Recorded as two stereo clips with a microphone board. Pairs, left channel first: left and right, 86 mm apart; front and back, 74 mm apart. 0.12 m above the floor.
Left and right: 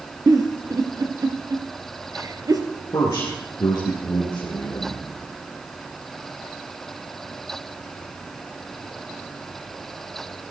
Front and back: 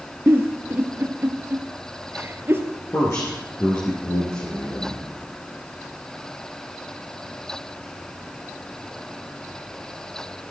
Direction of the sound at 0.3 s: 125° right.